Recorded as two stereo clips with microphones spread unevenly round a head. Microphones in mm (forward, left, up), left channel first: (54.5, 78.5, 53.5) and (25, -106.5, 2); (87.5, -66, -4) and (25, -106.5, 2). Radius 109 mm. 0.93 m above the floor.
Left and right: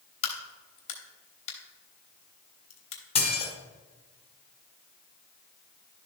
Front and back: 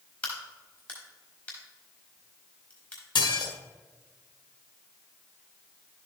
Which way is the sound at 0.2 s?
110° left.